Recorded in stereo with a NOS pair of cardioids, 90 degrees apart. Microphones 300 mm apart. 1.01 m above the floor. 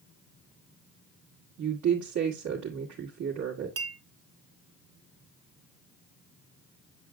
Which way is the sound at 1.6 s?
70° right.